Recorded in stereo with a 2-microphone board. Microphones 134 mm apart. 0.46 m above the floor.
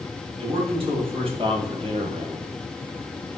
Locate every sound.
0.4 s a man speaking: 40° right (ahead or behind), 3.5 m; by 2.5 s 50° right (ahead or behind), 1.6 m